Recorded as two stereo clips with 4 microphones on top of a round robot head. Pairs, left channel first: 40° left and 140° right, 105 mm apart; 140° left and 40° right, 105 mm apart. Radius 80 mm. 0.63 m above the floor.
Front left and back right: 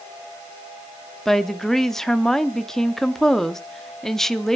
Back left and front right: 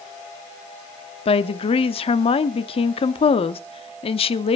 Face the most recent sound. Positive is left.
turn(degrees=125)